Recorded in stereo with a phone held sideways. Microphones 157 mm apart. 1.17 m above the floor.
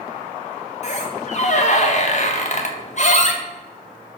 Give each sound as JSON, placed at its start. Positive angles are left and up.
{"t": 0.8, "sound": "a squeak", "side_deg": 50, "distance_m": 0.9}